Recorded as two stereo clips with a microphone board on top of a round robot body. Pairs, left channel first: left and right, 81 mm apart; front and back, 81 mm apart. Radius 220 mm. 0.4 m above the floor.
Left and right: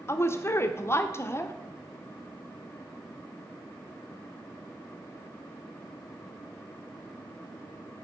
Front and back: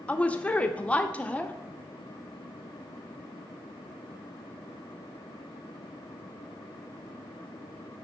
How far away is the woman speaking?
About 1.0 m.